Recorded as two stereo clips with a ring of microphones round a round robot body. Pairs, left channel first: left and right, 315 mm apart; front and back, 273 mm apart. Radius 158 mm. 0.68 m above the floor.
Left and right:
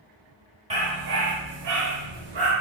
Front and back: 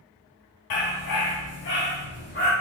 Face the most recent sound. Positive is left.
turn(degrees=-75)